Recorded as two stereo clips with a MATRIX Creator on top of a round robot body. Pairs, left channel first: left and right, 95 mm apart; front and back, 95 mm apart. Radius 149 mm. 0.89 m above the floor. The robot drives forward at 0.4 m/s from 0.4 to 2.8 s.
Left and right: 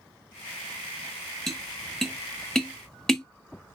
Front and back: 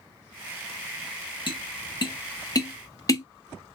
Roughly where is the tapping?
Ahead.